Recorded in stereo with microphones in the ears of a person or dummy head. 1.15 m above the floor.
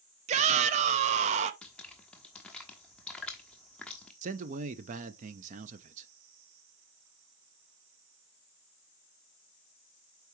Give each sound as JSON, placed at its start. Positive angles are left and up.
{"t": 0.3, "sound": "a shout", "side_deg": -35, "distance_m": 0.6}
{"t": 1.6, "sound": "dripping", "side_deg": 5, "distance_m": 1.2}
{"t": 4.2, "sound": "a man speaking", "side_deg": -40, "distance_m": 0.7}